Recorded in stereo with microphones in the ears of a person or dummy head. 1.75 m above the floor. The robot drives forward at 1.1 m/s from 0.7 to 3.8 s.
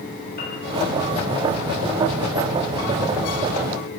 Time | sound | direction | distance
0.4 | a piano | 60° left (ahead or behind) | 2.5 m